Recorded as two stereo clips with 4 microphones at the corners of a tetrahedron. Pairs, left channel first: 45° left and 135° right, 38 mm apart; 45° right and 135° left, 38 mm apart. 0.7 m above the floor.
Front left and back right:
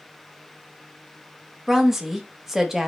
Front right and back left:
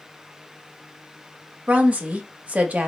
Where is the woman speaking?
145° left, 0.6 m.